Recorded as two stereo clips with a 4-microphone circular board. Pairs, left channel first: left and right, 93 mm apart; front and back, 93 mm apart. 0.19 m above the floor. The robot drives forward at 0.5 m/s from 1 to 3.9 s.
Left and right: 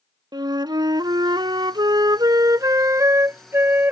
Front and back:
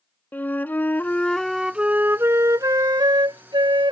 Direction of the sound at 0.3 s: 65° right.